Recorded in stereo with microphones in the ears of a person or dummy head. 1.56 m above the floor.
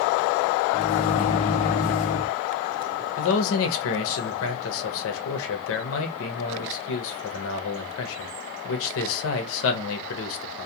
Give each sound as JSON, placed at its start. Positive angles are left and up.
{"t": 0.7, "sound": "a microwave", "side_deg": 35, "distance_m": 0.6}
{"t": 3.2, "sound": "a man speaking", "side_deg": 75, "distance_m": 0.7}